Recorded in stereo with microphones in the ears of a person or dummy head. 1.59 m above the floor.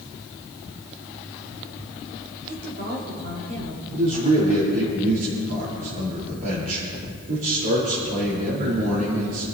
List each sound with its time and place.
2.5 s a woman speaking: 60° right (ahead or behind), 5 m
3.9 s a man speaking: 55° right (ahead or behind), 4.5 m